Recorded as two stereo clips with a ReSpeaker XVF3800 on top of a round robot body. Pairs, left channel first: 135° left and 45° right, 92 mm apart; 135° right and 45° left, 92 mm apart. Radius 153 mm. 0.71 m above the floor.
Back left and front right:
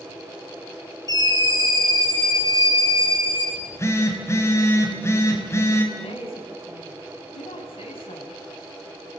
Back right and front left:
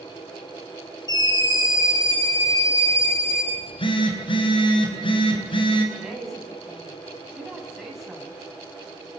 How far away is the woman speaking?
About 6.5 m.